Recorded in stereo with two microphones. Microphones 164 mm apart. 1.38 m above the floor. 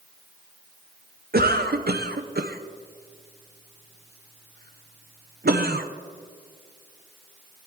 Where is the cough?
70° right (ahead or behind), 0.6 m.